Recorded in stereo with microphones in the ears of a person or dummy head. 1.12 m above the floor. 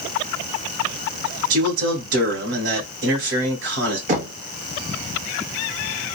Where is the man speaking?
65° right (ahead or behind), 1.5 m.